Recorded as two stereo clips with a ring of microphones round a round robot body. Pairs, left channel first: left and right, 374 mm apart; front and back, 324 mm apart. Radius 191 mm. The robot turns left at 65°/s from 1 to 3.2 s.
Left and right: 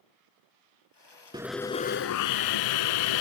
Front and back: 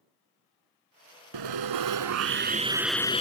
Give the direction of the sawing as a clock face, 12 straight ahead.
6 o'clock.